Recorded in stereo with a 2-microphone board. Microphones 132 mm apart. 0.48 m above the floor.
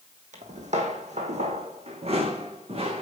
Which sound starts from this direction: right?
Footsteps, at 0.3 s.